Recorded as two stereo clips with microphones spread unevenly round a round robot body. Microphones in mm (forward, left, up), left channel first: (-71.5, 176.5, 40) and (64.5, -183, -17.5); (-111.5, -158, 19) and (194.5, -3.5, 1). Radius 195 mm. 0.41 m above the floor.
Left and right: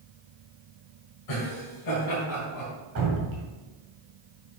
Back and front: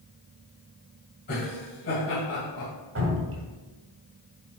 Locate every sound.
1.3 s laughter: 145° left, 2.5 m; by 2.7 s 150° left, 3 m
3.0 s dripping: 20° right, 2.0 m